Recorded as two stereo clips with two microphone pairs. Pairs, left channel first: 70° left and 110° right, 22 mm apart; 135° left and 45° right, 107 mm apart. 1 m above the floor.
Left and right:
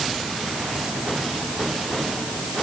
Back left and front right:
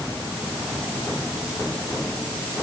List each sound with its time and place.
Only background noise.